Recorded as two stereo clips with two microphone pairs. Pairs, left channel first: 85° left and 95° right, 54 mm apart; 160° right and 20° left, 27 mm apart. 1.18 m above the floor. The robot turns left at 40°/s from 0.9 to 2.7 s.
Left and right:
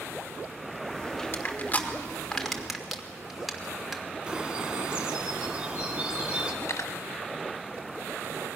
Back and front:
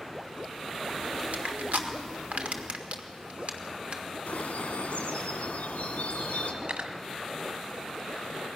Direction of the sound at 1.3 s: 50° left.